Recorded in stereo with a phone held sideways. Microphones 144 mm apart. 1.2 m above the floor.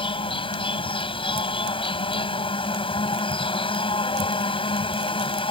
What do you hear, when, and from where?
0.0 s an insect: 40° left (ahead or behind)